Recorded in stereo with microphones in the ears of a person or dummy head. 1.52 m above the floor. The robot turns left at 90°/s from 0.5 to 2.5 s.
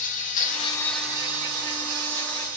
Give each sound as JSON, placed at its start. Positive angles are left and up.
{"t": 0.0, "sound": "an insect", "azimuth_deg": 40, "distance_m": 0.7}